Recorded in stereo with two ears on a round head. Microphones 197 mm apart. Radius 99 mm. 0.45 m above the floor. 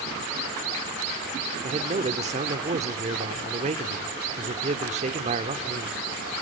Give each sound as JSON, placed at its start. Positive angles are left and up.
{"t": 1.6, "sound": "a man speaking", "side_deg": -30, "distance_m": 1.0}